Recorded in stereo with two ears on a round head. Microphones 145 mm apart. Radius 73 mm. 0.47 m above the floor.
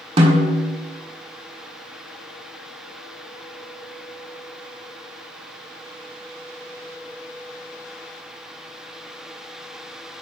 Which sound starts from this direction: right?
A snare drum, at 0.2 s.